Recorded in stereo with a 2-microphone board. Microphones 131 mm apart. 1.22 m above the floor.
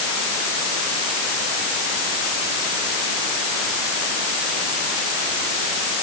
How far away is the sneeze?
No sneeze in this recording.